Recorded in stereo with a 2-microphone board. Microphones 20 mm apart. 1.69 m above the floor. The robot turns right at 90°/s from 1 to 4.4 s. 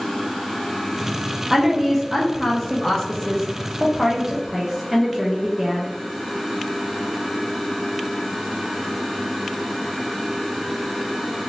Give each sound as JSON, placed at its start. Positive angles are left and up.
{"t": 1.5, "sound": "a woman speaking", "side_deg": -20, "distance_m": 0.6}